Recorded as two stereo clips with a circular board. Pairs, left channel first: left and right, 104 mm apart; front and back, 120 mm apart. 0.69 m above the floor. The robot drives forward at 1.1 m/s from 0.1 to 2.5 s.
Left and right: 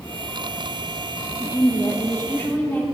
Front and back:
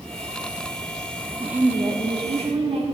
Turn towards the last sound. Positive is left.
turn(degrees=160)